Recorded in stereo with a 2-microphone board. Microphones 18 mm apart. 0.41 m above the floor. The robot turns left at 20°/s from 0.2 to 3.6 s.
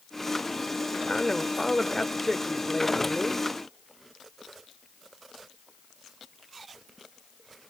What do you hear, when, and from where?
1.1 s a man speaking: 55° left, 1.3 m; by 3.5 s 10° left, 1.3 m